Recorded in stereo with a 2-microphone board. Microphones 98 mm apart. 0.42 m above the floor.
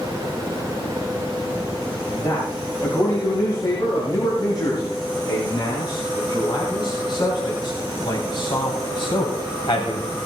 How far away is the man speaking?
About 7.5 m.